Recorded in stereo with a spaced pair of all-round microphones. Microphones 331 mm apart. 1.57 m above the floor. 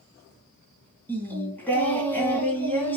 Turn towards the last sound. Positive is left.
turn(degrees=5)  # may be behind; listen again after turning